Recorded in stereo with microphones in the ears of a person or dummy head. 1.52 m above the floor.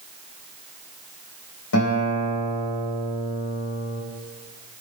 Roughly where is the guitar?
Left.